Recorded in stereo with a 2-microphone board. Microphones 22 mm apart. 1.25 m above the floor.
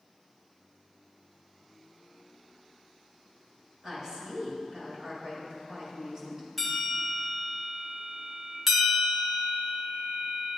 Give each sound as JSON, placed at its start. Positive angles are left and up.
{"t": 3.8, "sound": "a woman speaking", "side_deg": -20, "distance_m": 5.0}
{"t": 6.6, "sound": "a bell", "side_deg": 0, "distance_m": 3.0}
{"t": 8.7, "sound": "a bell", "side_deg": -5, "distance_m": 1.6}